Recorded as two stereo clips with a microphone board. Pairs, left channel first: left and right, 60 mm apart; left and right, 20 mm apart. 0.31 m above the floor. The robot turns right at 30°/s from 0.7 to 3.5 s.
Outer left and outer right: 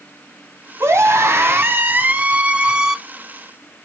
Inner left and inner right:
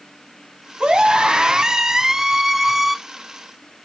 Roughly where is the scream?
Right.